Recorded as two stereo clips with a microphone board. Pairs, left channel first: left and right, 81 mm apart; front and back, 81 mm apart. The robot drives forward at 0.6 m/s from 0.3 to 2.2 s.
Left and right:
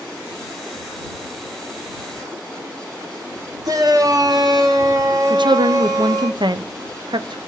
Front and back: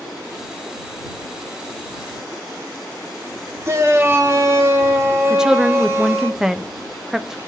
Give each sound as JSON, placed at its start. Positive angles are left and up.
{"t": 3.6, "sound": "a shout", "azimuth_deg": -125, "distance_m": 2.0}
{"t": 5.3, "sound": "a woman speaking", "azimuth_deg": -95, "distance_m": 0.7}